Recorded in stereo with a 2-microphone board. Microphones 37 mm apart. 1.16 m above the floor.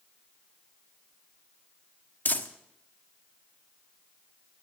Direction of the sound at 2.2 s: 50° left (ahead or behind).